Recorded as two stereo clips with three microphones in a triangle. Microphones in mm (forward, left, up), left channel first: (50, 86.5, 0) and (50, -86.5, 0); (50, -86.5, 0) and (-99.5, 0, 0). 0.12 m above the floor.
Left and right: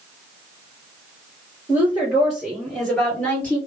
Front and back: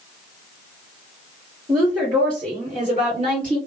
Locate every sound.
1.7 s a woman speaking: 160° right, 1.9 m; by 3.6 s 160° left, 2.5 m